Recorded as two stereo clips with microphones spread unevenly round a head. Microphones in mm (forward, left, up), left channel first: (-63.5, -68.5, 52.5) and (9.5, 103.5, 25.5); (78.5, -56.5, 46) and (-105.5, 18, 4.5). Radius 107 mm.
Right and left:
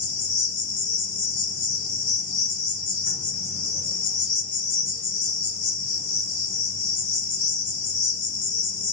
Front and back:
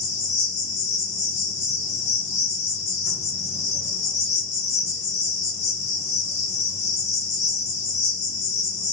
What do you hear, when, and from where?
0.0 s an insect: 85° right, 2 m